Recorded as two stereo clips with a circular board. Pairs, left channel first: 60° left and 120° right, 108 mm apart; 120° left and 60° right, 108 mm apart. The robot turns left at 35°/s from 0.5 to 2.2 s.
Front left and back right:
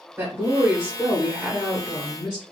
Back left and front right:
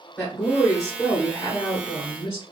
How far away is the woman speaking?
About 1.8 m.